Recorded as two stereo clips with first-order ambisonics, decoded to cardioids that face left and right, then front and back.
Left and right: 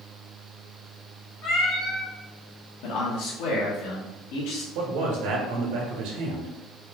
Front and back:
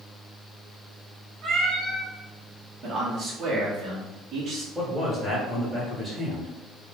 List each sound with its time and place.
1.4 s a cat meowing: 115° left, 1.4 m
2.8 s a man speaking: 110° left, 1.2 m
4.8 s a man speaking: 95° right, 1.5 m